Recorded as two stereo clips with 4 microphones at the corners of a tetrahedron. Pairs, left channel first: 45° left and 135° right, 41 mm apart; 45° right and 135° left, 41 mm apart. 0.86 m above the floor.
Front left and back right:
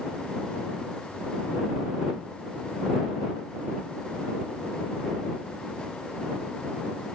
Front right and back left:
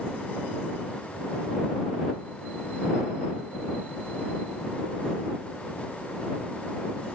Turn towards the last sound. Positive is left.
No sound to turn to.